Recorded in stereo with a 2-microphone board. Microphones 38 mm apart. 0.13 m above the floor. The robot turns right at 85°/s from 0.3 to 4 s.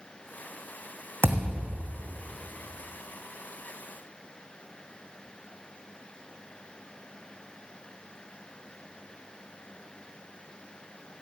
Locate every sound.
1.2 s a thud: 80° right, 1.8 m; by 1.9 s 20° right, 1.8 m